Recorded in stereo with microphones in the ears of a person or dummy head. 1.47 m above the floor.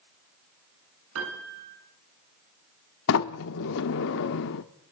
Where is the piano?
75° right (ahead or behind), 8 m.